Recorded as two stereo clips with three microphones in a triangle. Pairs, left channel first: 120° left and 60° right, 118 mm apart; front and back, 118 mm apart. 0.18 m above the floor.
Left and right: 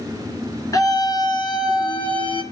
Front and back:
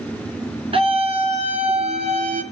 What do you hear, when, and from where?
0.7 s a scream: 175° left, 2.5 m; by 2.4 s 160° left, 3.5 m